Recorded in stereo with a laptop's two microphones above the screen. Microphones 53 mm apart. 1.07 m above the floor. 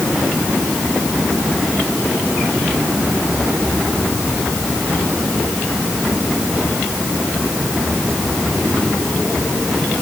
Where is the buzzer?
No buzzer in this recording.